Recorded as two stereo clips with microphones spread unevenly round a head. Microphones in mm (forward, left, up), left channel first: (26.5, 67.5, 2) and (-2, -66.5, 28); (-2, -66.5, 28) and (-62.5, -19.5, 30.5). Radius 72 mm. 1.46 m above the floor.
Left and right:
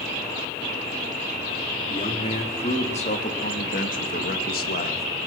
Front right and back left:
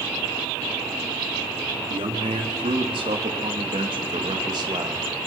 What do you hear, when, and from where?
1.9 s a man speaking: 130° left, 4 m; by 5.1 s 85° left, 2.5 m